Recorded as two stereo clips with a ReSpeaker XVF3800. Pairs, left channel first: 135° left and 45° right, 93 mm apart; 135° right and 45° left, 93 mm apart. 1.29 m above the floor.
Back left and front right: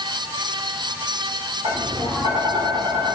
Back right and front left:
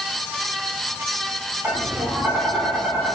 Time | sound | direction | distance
1.6 | tapping | 20° right | 4 m